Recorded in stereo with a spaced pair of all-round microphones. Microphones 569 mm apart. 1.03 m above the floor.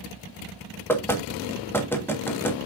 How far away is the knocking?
About 1.4 m.